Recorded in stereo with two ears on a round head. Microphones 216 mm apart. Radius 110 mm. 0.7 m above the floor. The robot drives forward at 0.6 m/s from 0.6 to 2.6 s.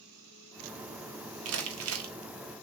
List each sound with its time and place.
1.4 s crumpling: 70° right (ahead or behind), 1.7 m; by 2.1 s 65° right (ahead or behind), 1.7 m